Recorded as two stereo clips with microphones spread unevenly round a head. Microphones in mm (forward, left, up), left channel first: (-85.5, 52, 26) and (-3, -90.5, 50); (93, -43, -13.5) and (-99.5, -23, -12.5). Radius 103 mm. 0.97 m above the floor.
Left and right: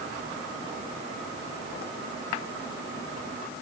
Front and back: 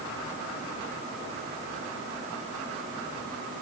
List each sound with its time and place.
Only background noise.